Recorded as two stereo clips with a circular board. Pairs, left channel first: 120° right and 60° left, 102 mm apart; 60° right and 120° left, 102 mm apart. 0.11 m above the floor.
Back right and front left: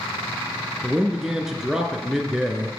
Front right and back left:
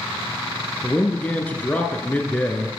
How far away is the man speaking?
About 1.2 m.